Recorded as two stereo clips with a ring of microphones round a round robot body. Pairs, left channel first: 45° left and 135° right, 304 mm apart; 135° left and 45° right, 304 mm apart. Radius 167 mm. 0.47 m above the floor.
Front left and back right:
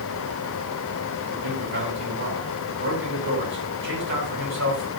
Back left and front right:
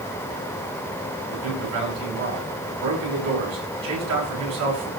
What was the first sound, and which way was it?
A man speaking, 80° right.